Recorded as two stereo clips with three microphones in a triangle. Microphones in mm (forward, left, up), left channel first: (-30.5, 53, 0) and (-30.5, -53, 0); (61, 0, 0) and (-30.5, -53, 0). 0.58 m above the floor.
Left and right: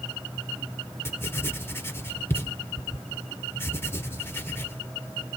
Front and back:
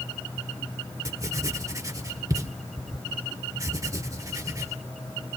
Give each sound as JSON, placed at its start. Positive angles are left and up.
{"t": 1.1, "sound": "writing", "azimuth_deg": 155, "distance_m": 1.3}